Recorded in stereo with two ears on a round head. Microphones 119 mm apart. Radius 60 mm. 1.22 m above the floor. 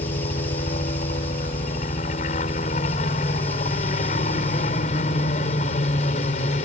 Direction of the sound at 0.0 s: 55° left (ahead or behind).